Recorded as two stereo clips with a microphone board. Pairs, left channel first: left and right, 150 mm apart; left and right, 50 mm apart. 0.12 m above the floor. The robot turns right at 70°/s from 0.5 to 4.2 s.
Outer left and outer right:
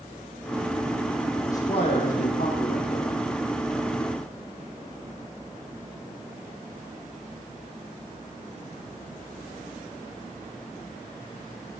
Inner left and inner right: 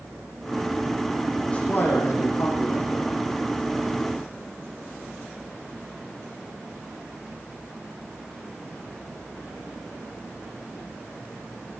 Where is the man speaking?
20° left, 7.5 m; by 3.2 s 140° left, 7.5 m.